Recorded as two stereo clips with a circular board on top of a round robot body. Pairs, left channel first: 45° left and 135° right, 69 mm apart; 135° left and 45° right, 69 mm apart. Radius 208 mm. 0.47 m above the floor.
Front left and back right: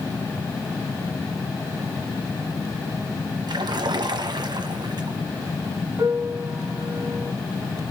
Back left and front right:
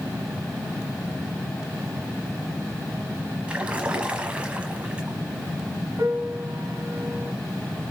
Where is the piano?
95° right, 3 m.